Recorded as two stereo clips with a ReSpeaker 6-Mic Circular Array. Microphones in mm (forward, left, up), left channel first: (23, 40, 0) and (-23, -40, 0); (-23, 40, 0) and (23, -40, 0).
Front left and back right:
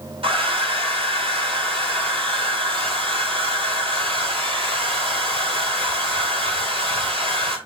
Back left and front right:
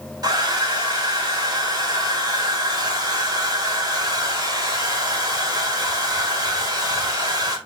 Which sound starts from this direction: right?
A hair dryer, at 0.2 s.